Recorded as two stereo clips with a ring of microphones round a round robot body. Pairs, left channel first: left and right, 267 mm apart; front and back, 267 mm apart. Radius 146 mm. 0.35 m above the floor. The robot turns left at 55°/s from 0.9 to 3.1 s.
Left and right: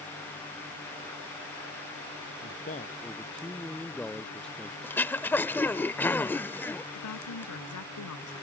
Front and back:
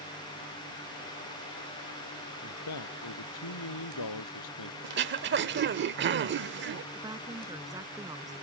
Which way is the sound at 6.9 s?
105° left.